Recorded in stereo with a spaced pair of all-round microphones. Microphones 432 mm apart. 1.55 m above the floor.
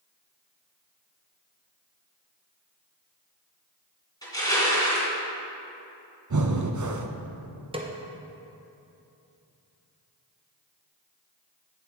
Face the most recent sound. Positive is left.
turn(degrees=-15)  # may be behind; listen again after turning